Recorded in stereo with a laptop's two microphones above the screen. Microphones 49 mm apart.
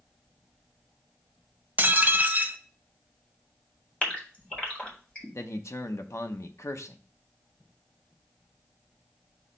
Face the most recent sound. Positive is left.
turn(degrees=65)  # may be behind; listen again after turning